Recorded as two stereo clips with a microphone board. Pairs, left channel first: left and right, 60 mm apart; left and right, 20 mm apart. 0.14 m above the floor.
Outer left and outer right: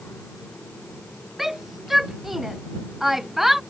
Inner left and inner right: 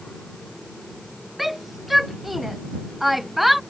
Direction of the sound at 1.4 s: 5° right (ahead or behind).